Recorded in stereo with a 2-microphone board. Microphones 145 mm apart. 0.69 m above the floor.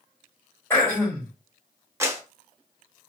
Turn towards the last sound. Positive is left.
turn(degrees=-20)  # may be behind; listen again after turning